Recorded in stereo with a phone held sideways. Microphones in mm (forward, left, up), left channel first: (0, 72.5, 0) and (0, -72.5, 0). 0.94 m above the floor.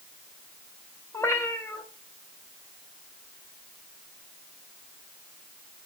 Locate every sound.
1.1 s a cat meowing: 20° left (ahead or behind), 1.3 m